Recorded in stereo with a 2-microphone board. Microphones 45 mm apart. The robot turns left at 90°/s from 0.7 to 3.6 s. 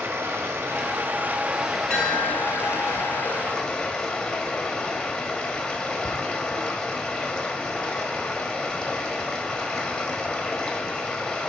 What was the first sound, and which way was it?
Running water, 85° right.